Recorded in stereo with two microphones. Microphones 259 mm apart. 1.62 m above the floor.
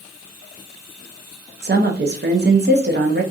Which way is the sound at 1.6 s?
40° right (ahead or behind).